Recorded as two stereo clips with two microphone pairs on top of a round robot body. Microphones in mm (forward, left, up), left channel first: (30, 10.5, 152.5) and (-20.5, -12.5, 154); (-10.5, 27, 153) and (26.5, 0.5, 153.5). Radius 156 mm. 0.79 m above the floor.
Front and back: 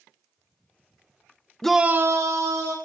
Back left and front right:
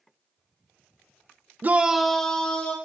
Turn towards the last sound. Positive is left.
turn(degrees=-150)